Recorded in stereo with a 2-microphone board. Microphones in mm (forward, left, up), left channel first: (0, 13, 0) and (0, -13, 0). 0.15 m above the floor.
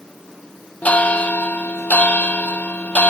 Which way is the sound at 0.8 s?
70° left (ahead or behind).